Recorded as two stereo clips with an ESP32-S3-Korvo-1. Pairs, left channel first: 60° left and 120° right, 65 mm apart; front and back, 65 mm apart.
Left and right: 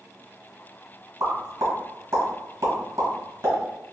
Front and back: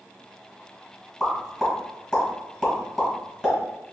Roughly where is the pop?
Right.